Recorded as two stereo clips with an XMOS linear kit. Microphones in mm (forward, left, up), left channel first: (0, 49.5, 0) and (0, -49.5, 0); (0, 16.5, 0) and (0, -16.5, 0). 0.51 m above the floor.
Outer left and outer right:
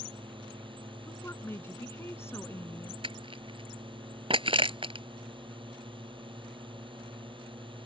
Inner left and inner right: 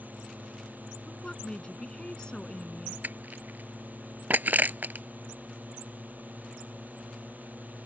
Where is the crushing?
75° right (ahead or behind).